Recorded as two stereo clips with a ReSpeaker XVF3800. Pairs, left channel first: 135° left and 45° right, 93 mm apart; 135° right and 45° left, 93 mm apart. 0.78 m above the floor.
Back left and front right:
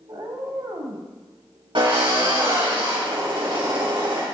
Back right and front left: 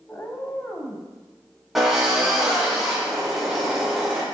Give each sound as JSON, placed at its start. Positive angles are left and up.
{"t": 0.1, "sound": "a cat meowing", "azimuth_deg": -75, "distance_m": 1.3}
{"t": 1.8, "sound": "a drill", "azimuth_deg": -40, "distance_m": 4.5}